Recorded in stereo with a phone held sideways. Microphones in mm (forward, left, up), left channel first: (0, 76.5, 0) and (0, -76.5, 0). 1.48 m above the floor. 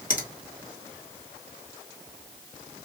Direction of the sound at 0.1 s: 60° left (ahead or behind).